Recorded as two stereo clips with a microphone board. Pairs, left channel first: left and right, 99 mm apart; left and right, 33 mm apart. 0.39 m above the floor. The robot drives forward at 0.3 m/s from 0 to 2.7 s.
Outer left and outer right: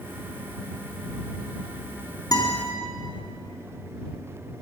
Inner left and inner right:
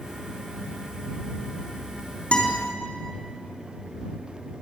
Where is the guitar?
40° left (ahead or behind), 3.5 m.